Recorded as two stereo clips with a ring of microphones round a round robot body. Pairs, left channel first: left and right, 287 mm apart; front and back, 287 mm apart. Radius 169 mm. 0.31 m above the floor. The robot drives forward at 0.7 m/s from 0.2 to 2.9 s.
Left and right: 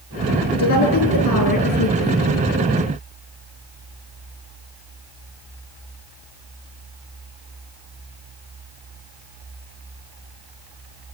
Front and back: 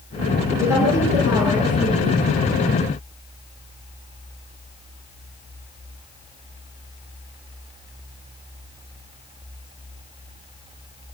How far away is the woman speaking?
About 8 m.